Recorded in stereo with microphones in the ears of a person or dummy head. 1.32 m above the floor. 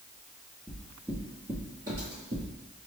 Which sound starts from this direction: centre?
Footsteps, at 0.7 s.